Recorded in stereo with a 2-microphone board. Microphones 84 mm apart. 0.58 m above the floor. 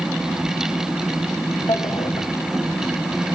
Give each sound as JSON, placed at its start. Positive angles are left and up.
{"t": 1.7, "sound": "a drawer", "side_deg": 80, "distance_m": 2.0}